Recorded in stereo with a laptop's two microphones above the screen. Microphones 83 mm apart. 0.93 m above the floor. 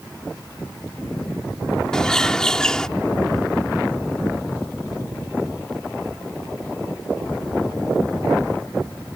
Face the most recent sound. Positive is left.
turn(degrees=10)  # may be behind; listen again after turning